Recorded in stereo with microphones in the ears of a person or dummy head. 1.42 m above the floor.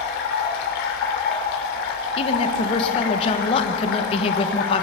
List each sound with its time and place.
0.0 s running water: 65° left (ahead or behind), 2.5 m
2.2 s a woman speaking: 35° left (ahead or behind), 1.2 m